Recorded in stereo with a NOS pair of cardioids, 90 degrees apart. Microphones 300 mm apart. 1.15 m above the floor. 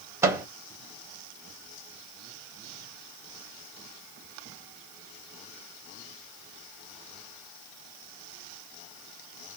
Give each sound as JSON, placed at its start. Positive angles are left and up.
{"t": 0.2, "sound": "a microwave", "azimuth_deg": -10, "distance_m": 0.8}